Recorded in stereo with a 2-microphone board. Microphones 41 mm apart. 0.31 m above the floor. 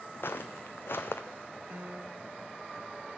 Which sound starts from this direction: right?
A piano, at 1.7 s.